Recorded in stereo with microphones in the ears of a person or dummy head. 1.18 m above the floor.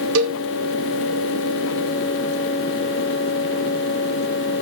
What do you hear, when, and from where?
0.1 s a cowbell: 75° right (ahead or behind), 1.8 m